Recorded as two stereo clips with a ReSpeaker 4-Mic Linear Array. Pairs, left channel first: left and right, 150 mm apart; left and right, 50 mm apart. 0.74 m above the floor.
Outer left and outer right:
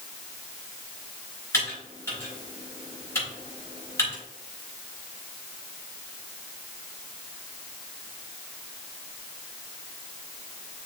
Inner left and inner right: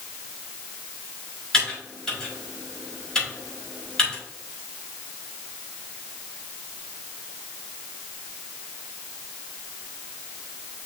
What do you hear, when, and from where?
1.5 s typing on a keyboard: 15° left (ahead or behind), 4.5 m